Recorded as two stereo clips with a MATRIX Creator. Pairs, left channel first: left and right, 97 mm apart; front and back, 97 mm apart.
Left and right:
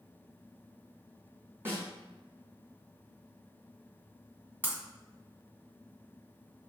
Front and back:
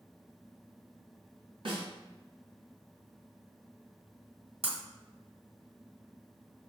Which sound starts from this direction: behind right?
A snare drum, at 1.6 s.